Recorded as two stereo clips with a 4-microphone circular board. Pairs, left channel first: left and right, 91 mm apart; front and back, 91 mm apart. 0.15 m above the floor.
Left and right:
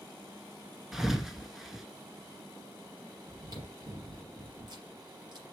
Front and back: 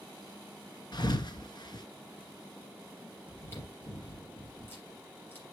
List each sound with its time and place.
0.9 s a thud: 5° right, 1.0 m
3.3 s chewing: 65° right, 3.5 m